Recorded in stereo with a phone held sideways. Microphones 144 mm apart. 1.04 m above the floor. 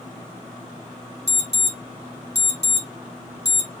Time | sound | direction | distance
1.3 | an alarm | 50° right (ahead or behind) | 1.8 m